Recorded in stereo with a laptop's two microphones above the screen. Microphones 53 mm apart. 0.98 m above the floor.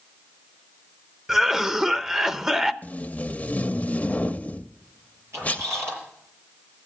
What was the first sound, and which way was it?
A cough, 10° right (ahead or behind).